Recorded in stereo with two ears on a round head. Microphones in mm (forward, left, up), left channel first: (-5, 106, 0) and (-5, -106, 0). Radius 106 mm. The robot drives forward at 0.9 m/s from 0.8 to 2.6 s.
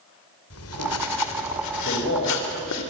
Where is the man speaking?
50° left (ahead or behind), 7 m; by 2.8 s 45° left (ahead or behind), 7.5 m.